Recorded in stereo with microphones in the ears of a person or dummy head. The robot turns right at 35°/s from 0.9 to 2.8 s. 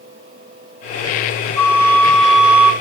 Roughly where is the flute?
Behind.